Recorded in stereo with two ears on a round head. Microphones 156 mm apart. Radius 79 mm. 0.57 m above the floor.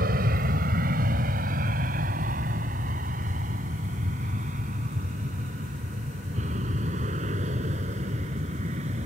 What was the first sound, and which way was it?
An aircraft, 50° right (ahead or behind).